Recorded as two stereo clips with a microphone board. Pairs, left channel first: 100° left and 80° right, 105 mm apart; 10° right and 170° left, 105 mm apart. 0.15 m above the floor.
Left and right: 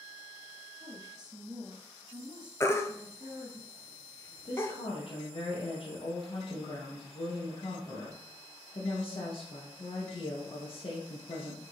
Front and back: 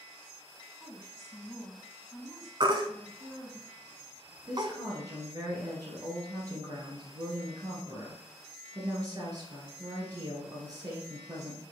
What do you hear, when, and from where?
0.8 s a woman speaking: 60° right, 1.8 m
2.6 s a baby crying: 150° left, 0.7 m
4.5 s a woman speaking: 120° left, 2.5 m